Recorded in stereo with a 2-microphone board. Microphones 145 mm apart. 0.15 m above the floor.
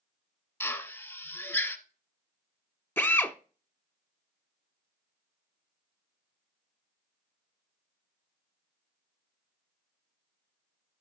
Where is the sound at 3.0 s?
15° left (ahead or behind), 0.7 m.